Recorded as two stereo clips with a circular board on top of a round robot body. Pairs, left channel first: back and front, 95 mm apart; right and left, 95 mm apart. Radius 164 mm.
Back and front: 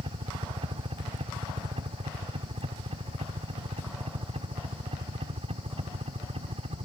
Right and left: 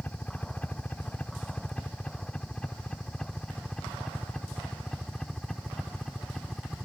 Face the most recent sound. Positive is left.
turn(degrees=0)